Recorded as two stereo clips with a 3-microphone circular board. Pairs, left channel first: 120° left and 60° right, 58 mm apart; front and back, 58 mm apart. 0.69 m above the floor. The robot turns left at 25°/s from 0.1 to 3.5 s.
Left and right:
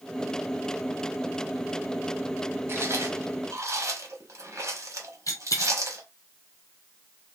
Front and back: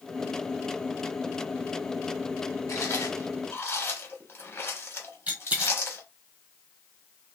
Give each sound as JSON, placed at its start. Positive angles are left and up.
{"t": 2.7, "sound": "chewing", "azimuth_deg": -20, "distance_m": 0.9}
{"t": 5.3, "sound": "a dropped coin", "azimuth_deg": 120, "distance_m": 1.4}